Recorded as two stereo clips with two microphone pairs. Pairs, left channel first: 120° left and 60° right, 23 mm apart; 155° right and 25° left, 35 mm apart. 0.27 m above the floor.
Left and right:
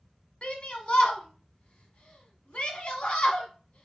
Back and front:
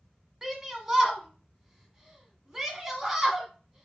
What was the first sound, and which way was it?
A shout, 105° left.